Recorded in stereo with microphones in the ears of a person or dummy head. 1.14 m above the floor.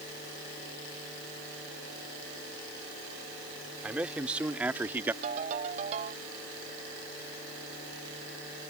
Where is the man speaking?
5° right (ahead or behind); by 5.1 s 10° right (ahead or behind).